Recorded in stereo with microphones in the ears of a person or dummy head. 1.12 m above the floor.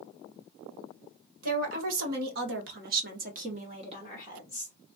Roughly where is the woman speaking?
Right.